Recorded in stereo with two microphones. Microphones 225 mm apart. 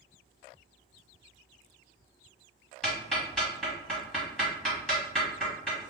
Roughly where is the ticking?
Centre.